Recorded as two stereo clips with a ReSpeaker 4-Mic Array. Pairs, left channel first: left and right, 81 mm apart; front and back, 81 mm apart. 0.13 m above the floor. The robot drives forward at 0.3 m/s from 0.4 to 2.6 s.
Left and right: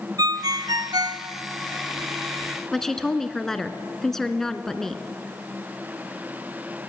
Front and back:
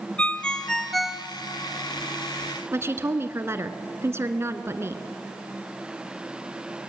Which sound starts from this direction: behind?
A woman speaking, at 2.7 s.